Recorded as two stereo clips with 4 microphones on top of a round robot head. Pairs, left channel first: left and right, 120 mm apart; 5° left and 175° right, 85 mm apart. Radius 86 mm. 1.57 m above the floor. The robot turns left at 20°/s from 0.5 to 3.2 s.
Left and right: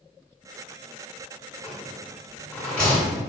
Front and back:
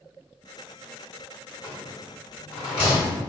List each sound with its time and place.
1.6 s a rattle: 30° left, 1.1 m; by 3.2 s straight ahead, 1.1 m